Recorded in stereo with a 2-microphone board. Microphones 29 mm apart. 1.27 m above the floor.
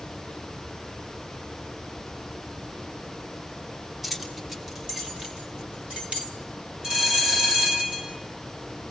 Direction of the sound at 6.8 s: 30° right (ahead or behind).